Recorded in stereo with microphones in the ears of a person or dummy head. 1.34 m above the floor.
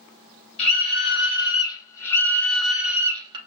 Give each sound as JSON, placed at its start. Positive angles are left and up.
{"t": 0.6, "sound": "a scream", "side_deg": 35, "distance_m": 1.7}